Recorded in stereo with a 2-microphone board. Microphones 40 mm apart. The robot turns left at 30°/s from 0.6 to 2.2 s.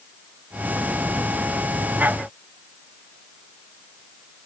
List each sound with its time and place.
Only background noise.